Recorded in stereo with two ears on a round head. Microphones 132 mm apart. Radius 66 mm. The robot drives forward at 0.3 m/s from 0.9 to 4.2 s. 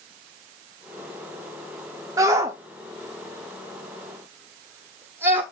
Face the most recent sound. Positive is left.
turn(degrees=-15)  # may be behind; listen again after turning